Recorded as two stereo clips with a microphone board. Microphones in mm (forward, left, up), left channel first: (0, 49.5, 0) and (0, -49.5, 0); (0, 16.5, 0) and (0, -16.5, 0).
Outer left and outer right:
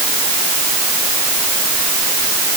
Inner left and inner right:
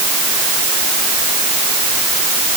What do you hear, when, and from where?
Only background noise.